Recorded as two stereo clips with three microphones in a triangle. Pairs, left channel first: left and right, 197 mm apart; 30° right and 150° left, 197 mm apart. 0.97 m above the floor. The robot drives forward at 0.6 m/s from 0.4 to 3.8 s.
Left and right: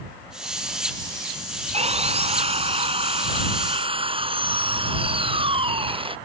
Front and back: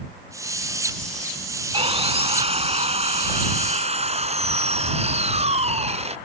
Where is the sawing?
150° right.